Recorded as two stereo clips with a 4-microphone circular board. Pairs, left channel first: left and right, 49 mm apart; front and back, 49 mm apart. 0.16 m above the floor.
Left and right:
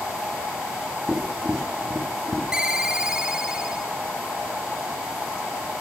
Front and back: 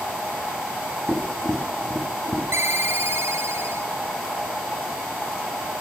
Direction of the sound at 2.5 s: 160° right.